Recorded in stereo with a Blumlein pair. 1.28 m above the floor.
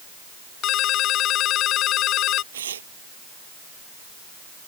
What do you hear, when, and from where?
0.6 s a ringtone: 35° left
2.5 s tearing paper: 65° right